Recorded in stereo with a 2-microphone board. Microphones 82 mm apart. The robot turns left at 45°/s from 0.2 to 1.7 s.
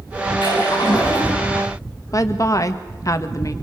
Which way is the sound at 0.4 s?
75° left.